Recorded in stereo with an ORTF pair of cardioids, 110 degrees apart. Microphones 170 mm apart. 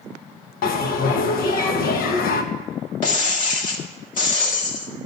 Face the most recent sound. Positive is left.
turn(degrees=50)